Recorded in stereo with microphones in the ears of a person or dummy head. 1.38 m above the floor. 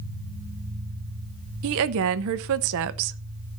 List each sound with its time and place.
1.6 s a woman speaking: 65° right (ahead or behind), 0.7 m